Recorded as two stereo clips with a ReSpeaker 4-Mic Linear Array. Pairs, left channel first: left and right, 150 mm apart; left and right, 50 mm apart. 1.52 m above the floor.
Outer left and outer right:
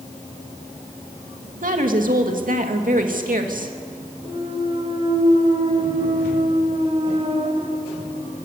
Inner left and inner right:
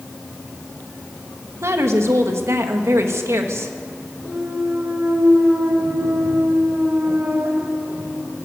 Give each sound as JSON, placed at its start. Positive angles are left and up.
{"t": 1.6, "sound": "a woman speaking", "side_deg": -65, "distance_m": 2.5}
{"t": 4.2, "sound": "a clunk", "side_deg": -40, "distance_m": 2.5}